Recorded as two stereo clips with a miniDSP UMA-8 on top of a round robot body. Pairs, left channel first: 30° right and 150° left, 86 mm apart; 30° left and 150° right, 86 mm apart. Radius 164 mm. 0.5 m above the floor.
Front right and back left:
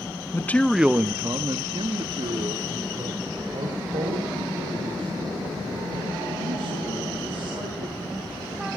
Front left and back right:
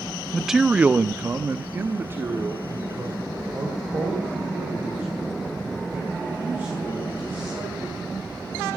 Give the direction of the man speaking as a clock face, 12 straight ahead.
2 o'clock.